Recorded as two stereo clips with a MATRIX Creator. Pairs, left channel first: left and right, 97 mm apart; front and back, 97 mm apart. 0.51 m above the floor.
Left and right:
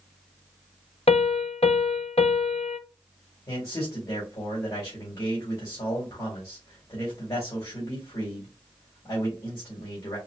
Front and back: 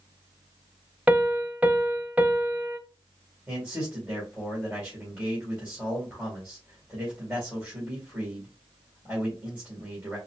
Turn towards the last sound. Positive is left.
turn(degrees=110)